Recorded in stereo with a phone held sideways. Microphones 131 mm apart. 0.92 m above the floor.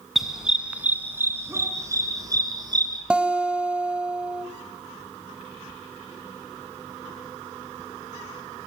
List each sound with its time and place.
0.1 s a dog barking: centre (ahead or behind), 4 m; by 3.0 s 35° right (ahead or behind), 6 m
3.1 s a guitar: 10° right (ahead or behind), 1.8 m